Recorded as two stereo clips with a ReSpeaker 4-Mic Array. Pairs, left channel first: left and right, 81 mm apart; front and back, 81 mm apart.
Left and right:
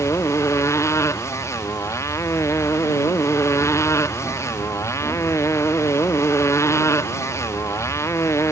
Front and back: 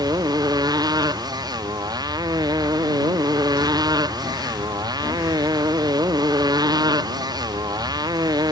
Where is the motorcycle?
145° left.